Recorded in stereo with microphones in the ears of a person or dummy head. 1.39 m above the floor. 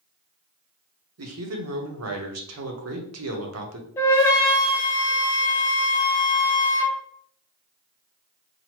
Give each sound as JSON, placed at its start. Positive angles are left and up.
{"t": 1.2, "sound": "a man speaking", "side_deg": -80, "distance_m": 0.9}
{"t": 4.0, "sound": "a flute", "side_deg": 15, "distance_m": 0.5}